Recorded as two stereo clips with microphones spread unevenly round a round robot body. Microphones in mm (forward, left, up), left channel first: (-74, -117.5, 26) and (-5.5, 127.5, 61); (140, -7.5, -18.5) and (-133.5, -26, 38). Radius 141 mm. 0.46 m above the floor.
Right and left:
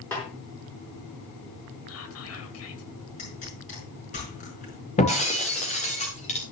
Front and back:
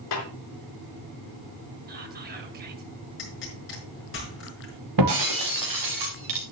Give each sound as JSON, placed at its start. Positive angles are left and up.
{"t": 0.1, "sound": "a snare drum", "azimuth_deg": -20, "distance_m": 4.5}
{"t": 1.9, "sound": "whispering", "azimuth_deg": -115, "distance_m": 2.5}
{"t": 3.2, "sound": "a pop", "azimuth_deg": -45, "distance_m": 5.0}
{"t": 5.0, "sound": "breaking glass", "azimuth_deg": -170, "distance_m": 3.5}